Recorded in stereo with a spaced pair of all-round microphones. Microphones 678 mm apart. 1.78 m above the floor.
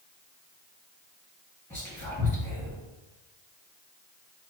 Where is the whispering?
5° left (ahead or behind), 1.8 m.